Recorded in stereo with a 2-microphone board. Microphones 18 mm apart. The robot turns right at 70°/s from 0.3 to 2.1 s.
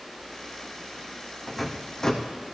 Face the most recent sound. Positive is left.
turn(degrees=35)  # may be behind; listen again after turning